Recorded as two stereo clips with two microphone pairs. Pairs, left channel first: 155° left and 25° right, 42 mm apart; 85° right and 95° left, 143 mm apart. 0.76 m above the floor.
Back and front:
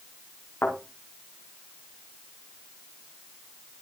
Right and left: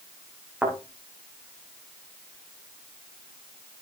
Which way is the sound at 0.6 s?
175° left.